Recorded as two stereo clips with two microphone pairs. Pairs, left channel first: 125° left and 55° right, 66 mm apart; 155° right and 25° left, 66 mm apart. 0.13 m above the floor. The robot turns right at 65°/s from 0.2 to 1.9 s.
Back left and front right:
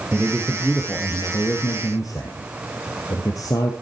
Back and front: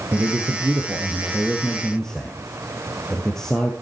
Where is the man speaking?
10° left, 2.5 m; by 3.7 s 125° left, 2.5 m.